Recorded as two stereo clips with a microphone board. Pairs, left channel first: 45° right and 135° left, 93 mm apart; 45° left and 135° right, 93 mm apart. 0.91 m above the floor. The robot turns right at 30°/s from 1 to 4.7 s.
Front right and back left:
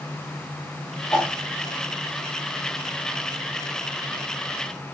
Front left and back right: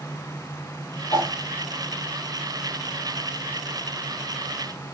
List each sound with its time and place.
1.1 s a whoosh: 10° left, 3 m; by 1.4 s 15° left, 3 m